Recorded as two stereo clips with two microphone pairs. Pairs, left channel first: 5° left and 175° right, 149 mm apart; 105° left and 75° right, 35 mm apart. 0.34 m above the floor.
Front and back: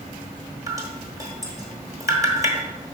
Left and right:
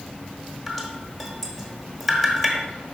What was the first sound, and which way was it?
Dripping, 170° right.